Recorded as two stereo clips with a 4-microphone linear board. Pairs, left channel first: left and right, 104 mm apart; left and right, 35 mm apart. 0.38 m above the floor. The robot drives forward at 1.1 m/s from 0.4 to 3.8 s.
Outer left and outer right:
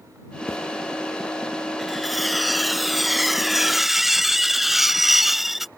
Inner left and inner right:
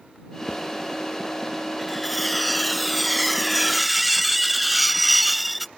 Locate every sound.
0.5 s a zipper: 30° left (ahead or behind); by 0.6 s 35° left (ahead or behind)
1.8 s cutlery clinking: centre (ahead or behind); by 5.7 s 5° right (ahead or behind)